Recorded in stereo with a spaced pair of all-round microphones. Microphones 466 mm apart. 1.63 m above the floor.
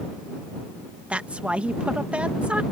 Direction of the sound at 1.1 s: 5° right (ahead or behind).